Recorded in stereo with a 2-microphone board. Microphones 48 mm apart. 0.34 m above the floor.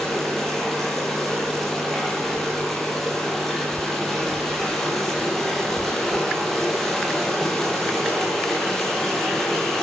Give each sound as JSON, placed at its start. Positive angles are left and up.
{"t": 0.0, "sound": "running water", "side_deg": 5, "distance_m": 9.5}